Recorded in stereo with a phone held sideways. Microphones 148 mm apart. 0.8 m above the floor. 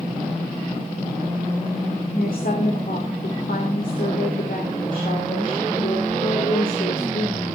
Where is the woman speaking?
65° left (ahead or behind), 3 m.